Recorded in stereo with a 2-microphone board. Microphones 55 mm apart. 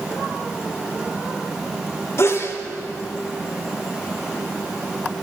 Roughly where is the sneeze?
Left.